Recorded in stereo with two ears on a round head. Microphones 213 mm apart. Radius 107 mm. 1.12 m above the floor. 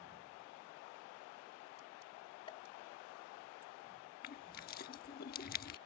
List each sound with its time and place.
2.5 s a pop: 25° left (ahead or behind)
4.2 s crushing: 40° left (ahead or behind)